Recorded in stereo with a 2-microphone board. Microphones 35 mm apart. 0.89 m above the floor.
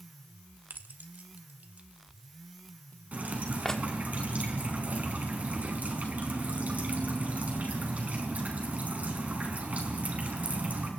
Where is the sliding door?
No sliding door in this recording.